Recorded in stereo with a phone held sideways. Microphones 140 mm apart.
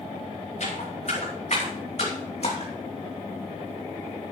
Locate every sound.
0.6 s footsteps: 55° left (ahead or behind), 5.5 m; by 2.7 s 45° left (ahead or behind), 3 m